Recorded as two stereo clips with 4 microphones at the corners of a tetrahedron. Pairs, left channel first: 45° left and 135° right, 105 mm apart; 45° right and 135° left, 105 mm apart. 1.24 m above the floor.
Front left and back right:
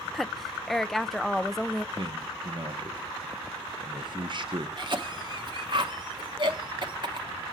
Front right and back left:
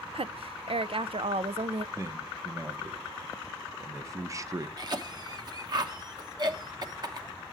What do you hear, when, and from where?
0.1 s a woman speaking: 135° left, 0.5 m
1.9 s a man speaking: 170° right, 1.0 m
4.8 s a cough: 175° right, 1.1 m